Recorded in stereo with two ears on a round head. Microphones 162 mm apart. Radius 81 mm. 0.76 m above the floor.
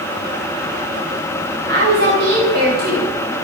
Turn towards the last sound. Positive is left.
turn(degrees=-55)  # may be behind; listen again after turning